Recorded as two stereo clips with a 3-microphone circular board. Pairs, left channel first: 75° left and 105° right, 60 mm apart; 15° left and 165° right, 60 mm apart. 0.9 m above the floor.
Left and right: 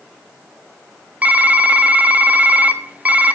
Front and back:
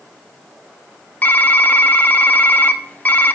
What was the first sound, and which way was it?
Typing on a keyboard, 45° right.